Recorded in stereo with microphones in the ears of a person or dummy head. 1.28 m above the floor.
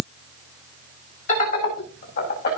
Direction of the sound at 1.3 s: 45° left (ahead or behind).